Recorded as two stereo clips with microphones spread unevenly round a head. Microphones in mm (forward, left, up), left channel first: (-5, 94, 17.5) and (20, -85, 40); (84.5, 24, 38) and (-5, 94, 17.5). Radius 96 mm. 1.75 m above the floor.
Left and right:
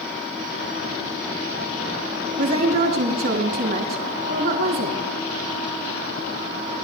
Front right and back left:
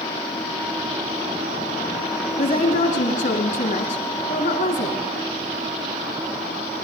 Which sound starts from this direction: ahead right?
A woman speaking, at 2.4 s.